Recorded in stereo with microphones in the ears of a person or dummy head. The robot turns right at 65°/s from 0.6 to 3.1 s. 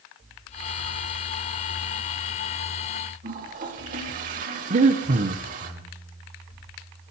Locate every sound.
3.2 s a toilet flushing: 45° right (ahead or behind), 2.5 m
4.7 s breathing: 40° right (ahead or behind), 1.0 m